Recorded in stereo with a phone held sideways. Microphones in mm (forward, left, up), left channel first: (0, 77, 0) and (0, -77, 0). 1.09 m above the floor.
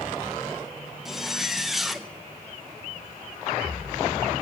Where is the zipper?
Centre (ahead or behind), 0.7 m.